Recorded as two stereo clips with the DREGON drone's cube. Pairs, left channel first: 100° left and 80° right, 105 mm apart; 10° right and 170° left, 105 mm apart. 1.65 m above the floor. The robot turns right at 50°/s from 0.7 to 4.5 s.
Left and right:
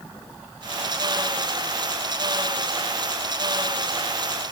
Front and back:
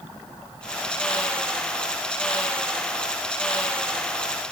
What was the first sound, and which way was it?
Only background noise.